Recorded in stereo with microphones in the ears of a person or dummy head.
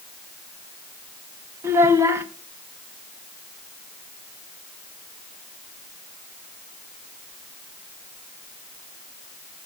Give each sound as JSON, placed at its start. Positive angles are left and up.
{"t": 1.6, "sound": "a child speaking", "side_deg": -15, "distance_m": 1.0}